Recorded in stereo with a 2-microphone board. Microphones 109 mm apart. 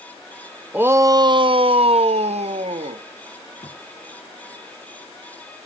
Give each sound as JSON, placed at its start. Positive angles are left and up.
{"t": 0.7, "sound": "a shout", "side_deg": -15, "distance_m": 0.6}
{"t": 3.6, "sound": "a thud", "side_deg": 55, "distance_m": 5.5}